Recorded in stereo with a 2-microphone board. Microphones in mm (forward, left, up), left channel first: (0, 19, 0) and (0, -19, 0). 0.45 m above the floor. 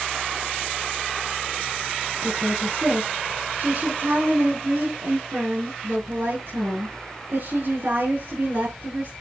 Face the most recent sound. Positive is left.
turn(degrees=-60)  # may be behind; listen again after turning